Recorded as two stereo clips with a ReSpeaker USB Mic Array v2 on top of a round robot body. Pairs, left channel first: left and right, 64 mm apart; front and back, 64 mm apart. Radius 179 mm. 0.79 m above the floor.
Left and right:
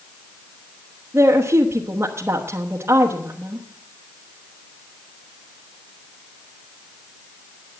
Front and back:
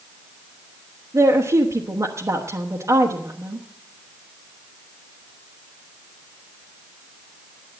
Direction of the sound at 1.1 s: 140° right.